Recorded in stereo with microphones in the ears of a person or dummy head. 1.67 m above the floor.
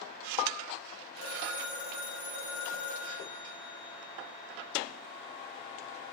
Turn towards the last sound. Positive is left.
turn(degrees=75)  # may be behind; listen again after turning